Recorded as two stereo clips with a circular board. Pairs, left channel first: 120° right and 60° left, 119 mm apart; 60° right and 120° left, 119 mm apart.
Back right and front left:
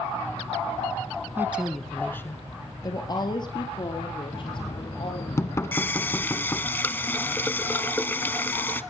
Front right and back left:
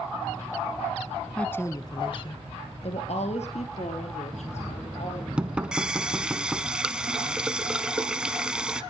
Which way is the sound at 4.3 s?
165° right.